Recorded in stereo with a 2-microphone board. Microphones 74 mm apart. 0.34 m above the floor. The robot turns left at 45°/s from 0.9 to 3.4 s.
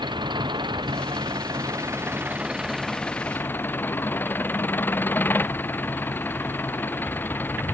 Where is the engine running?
90° right; by 7.7 s 155° left.